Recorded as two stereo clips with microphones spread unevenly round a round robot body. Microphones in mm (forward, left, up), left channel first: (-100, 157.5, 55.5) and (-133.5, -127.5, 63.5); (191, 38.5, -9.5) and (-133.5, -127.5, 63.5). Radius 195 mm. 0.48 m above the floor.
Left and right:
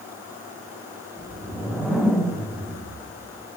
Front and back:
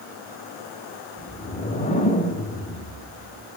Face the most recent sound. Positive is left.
turn(degrees=0)